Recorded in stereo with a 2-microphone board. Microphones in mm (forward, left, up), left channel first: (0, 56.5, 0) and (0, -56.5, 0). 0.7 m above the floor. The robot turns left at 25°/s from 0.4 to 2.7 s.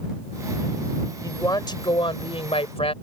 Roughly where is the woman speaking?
Behind left.